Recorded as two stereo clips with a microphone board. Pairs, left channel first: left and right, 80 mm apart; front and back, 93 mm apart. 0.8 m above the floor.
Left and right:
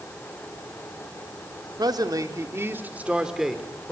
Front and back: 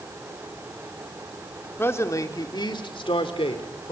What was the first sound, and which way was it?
A man speaking, 65° right.